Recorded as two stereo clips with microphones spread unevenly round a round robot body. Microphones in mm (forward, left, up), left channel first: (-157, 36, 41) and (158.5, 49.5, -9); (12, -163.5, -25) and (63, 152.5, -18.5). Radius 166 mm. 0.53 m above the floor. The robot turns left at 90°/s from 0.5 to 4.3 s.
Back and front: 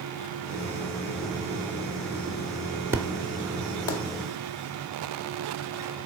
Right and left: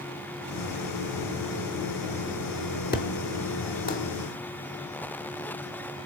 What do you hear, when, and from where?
2.9 s an explosion: 60° right, 1.2 m; by 4.0 s 160° right, 1.2 m